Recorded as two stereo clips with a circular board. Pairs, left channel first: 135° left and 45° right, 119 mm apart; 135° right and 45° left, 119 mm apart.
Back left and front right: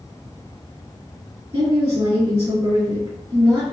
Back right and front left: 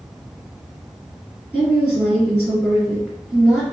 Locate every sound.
1.5 s a woman speaking: 40° right, 1.6 m